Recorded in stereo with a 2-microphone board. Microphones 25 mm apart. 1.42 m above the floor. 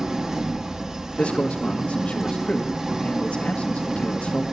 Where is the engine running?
25° right (ahead or behind), 0.9 m.